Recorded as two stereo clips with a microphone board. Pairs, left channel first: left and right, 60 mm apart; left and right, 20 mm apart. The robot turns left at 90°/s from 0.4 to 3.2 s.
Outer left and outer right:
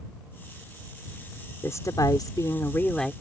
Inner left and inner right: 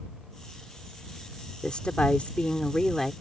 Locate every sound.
1.6 s a woman speaking: 135° left; by 3.1 s straight ahead